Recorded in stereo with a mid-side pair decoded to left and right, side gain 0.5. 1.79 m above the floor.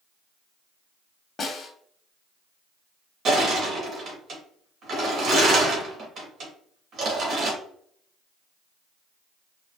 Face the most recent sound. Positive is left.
turn(degrees=-50)